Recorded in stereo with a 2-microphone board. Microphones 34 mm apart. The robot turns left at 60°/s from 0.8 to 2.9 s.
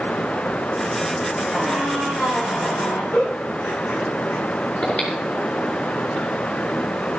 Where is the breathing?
45° left (ahead or behind), 5.5 m.